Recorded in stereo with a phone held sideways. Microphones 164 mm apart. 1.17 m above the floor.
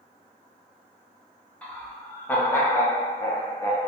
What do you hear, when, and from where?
1.6 s laughter: 10° left (ahead or behind), 1.1 m; by 3.9 s 20° left (ahead or behind), 0.6 m